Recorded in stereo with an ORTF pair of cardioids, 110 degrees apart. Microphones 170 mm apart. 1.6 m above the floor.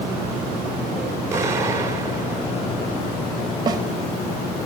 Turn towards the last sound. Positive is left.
turn(degrees=-25)